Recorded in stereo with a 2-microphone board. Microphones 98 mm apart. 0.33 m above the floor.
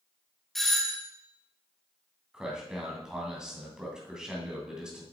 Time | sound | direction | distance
0.6 | a doorbell | 5° left (ahead or behind) | 1.4 m
2.3 | a man speaking | 5° right (ahead or behind) | 2.5 m